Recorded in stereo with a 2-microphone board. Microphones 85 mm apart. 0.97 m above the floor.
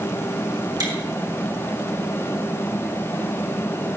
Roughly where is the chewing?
Right.